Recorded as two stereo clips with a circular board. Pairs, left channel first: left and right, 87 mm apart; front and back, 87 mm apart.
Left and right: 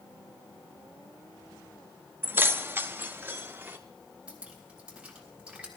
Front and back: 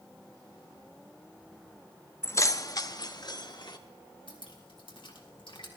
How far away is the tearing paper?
No tearing paper in this recording.